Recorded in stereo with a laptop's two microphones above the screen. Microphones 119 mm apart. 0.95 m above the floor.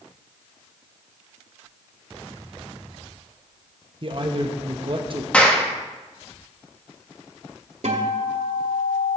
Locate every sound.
4.0 s a man speaking: 45° right (ahead or behind), 1.0 m
5.3 s a clap: 10° left (ahead or behind), 1.0 m
7.8 s a guitar: 65° right (ahead or behind), 1.4 m